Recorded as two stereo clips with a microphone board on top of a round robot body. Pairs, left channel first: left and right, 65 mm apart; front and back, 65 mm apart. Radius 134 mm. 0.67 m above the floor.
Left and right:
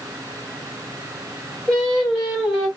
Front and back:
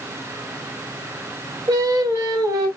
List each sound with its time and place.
1.7 s singing: 170° left, 3 m